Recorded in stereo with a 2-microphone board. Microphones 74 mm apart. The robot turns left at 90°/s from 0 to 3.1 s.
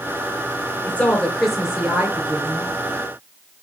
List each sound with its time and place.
0.9 s a woman speaking: 20° left (ahead or behind), 1.6 m; by 2.7 s 25° right (ahead or behind), 1.6 m